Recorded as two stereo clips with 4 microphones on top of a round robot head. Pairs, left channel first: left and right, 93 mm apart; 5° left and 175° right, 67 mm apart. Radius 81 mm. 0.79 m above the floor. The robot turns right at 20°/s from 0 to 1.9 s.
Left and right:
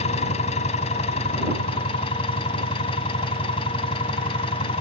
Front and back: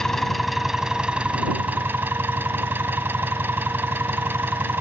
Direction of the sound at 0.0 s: 90° left.